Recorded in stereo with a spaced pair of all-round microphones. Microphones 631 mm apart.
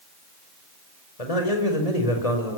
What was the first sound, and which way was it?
A man speaking, 70° left (ahead or behind).